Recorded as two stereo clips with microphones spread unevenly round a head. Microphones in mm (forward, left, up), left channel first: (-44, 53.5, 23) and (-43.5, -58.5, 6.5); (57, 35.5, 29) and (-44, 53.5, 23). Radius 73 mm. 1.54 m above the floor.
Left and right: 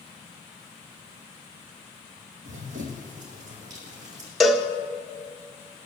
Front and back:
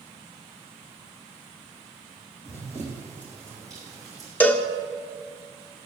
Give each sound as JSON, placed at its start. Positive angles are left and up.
{"t": 2.5, "sound": "running footsteps", "azimuth_deg": -75, "distance_m": 2.5}
{"t": 4.4, "sound": "a cowbell", "azimuth_deg": 25, "distance_m": 0.7}